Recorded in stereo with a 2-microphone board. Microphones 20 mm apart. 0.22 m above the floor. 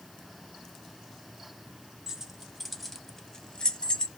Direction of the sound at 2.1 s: 30° right (ahead or behind).